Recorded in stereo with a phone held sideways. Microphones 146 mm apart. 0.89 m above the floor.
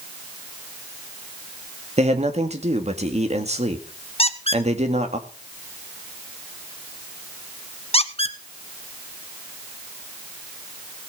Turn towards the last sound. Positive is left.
turn(degrees=40)  # may be behind; listen again after turning